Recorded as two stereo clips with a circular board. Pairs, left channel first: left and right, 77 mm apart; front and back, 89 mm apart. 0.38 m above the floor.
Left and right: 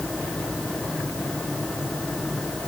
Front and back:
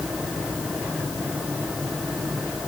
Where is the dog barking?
No dog barking in this recording.